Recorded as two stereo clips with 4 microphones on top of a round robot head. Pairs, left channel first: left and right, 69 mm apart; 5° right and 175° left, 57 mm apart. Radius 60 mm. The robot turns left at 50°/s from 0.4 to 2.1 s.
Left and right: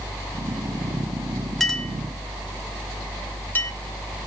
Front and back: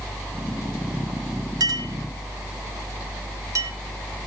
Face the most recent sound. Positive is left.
turn(degrees=155)